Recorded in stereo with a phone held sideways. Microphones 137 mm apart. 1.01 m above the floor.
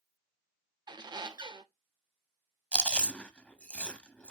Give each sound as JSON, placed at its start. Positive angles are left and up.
{"t": 0.9, "sound": "a squeak", "side_deg": -35, "distance_m": 0.6}
{"t": 2.7, "sound": "chewing", "side_deg": 10, "distance_m": 0.7}